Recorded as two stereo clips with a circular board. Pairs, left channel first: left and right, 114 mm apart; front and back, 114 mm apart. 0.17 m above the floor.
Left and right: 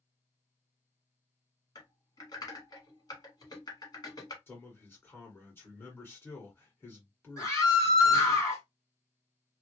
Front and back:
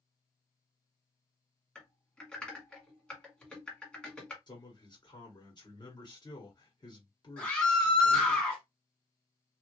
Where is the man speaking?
25° left, 1.9 m.